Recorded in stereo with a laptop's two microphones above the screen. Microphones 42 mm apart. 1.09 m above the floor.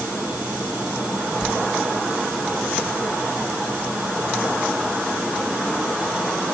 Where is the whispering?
5° left (ahead or behind), 5.5 m.